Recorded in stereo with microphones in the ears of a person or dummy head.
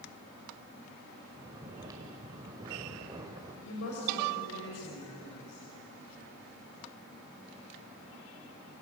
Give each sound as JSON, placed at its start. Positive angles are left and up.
{"t": 1.3, "sound": "snoring", "side_deg": -20, "distance_m": 2.0}
{"t": 3.6, "sound": "a woman speaking", "side_deg": 90, "distance_m": 6.5}